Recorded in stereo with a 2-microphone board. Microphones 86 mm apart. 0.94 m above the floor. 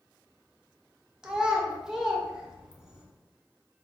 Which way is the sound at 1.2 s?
5° right (ahead or behind).